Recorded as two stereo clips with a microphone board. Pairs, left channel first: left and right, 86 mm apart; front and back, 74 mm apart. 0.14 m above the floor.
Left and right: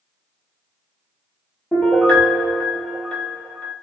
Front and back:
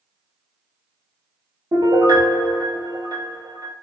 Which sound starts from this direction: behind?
A piano, at 1.7 s.